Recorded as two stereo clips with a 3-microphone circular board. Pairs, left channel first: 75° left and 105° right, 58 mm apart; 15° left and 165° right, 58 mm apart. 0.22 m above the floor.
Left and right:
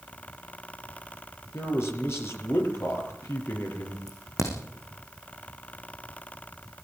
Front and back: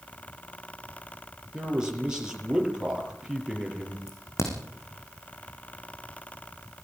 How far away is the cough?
No cough in this recording.